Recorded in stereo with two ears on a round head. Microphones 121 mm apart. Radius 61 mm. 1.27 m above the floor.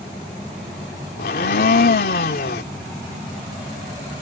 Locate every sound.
1.2 s a blender: 80° left